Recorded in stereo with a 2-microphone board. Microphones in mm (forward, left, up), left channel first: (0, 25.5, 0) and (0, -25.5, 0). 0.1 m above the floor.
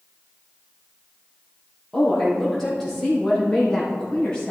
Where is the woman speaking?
10° left (ahead or behind), 4 m; by 4.5 s 15° left (ahead or behind), 5.5 m.